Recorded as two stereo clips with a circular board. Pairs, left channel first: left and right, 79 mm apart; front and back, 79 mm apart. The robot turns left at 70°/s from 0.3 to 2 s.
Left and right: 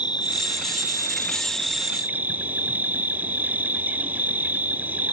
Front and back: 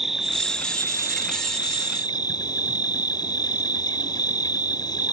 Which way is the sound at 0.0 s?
95° left.